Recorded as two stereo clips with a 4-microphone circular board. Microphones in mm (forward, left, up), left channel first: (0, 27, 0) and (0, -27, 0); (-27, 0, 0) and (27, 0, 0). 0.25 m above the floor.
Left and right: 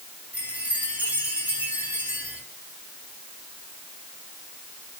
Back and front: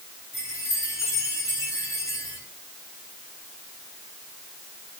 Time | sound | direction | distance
0.3 | a chime | 150° right | 8 m